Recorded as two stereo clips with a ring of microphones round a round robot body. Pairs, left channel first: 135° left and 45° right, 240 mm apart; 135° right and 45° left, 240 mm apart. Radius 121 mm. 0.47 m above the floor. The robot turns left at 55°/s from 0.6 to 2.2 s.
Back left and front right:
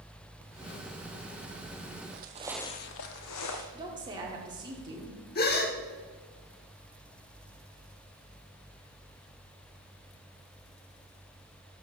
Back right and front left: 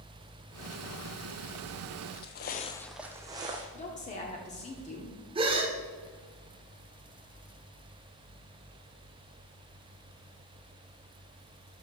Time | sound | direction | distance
2.1 | footsteps | 85° right | 0.8 m
3.7 | a woman speaking | 100° right | 1.0 m
5.3 | a gasp | 105° left | 1.1 m